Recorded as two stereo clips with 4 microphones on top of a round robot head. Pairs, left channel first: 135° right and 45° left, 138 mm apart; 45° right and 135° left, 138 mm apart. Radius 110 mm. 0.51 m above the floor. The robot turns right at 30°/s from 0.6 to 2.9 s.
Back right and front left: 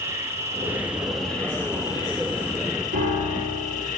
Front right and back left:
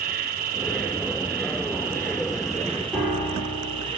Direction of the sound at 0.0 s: 120° left.